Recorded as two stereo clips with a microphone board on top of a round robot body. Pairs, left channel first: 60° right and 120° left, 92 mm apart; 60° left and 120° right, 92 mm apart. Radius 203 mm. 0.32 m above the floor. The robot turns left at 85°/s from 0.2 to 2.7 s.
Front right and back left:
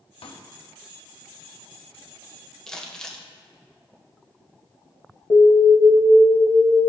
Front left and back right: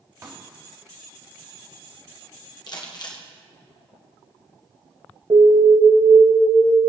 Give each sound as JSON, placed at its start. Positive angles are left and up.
{"t": 0.2, "sound": "a pop", "azimuth_deg": -65, "distance_m": 1.4}
{"t": 2.7, "sound": "crumpling", "azimuth_deg": 25, "distance_m": 1.7}
{"t": 5.3, "sound": "an alarm", "azimuth_deg": -85, "distance_m": 2.5}